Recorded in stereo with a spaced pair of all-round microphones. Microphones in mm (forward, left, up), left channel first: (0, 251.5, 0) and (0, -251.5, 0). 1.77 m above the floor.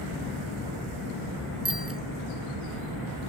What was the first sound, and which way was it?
A bicycle bell, 25° right (ahead or behind).